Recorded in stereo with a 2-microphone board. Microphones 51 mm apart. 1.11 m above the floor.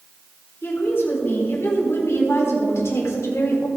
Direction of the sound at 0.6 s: 45° left (ahead or behind).